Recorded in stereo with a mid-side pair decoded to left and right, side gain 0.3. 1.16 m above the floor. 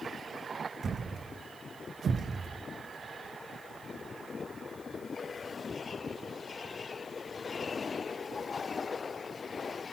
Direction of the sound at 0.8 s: 60° right.